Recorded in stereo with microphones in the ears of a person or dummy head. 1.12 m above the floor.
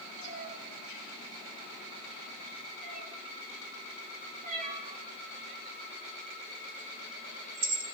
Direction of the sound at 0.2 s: 40° right (ahead or behind).